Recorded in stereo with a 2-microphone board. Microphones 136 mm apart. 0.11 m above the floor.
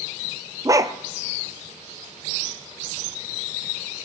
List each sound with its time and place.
0.7 s a dog barking: 25° right (ahead or behind), 0.6 m